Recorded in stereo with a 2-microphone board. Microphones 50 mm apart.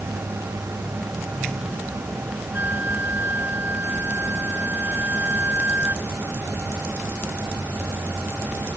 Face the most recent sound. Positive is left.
turn(degrees=-40)  # may be behind; listen again after turning